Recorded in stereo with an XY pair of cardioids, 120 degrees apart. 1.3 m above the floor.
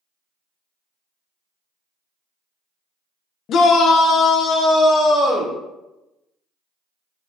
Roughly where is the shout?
Ahead left.